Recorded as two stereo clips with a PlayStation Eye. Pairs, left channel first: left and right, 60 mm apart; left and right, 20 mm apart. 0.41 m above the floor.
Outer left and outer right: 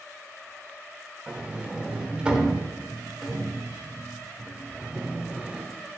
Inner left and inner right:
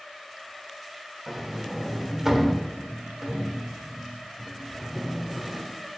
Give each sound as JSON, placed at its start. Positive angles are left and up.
{"t": 1.3, "sound": "a sliding door", "side_deg": -15, "distance_m": 0.7}